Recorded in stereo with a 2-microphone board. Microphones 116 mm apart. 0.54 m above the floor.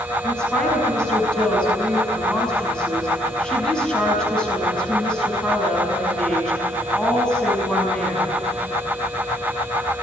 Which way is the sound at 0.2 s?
5° left (ahead or behind).